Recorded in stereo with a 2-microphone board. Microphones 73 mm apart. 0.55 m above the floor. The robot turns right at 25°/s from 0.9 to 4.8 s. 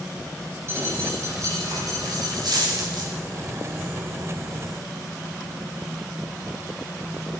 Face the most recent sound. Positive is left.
turn(degrees=-45)